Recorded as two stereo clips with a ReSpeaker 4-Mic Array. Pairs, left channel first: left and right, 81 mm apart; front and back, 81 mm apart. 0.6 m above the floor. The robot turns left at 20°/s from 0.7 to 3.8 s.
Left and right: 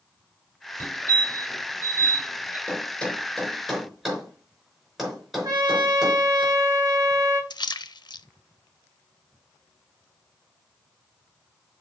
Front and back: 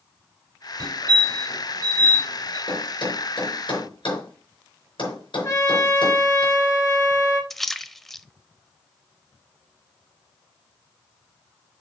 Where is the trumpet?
45° right, 3.5 m.